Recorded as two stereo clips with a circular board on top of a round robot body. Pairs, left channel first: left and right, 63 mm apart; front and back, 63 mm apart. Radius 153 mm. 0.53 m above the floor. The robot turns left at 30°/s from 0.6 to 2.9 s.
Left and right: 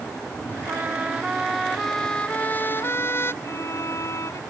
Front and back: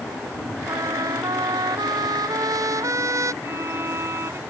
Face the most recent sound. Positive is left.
turn(degrees=130)